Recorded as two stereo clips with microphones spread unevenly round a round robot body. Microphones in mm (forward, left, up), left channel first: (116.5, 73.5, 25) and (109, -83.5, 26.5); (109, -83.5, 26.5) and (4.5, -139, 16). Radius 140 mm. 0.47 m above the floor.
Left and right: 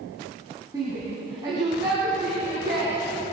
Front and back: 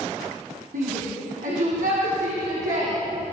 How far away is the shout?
About 4 m.